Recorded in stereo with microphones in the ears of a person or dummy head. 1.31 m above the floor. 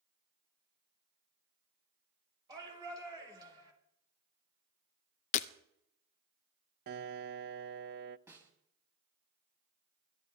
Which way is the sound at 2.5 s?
20° right (ahead or behind).